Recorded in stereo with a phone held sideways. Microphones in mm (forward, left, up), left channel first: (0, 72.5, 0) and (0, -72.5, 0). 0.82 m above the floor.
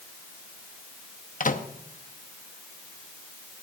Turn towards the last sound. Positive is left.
turn(degrees=65)  # may be behind; listen again after turning